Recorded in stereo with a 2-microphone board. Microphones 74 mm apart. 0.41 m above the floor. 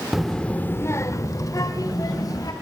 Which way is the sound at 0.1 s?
5° right (ahead or behind).